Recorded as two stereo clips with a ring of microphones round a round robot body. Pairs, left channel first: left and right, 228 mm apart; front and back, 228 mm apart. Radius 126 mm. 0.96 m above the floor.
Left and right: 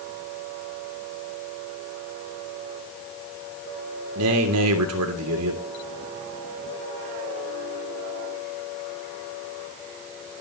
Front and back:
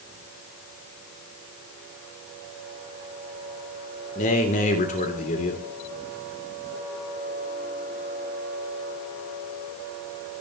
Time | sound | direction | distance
4.2 | a man speaking | 60° right | 3 m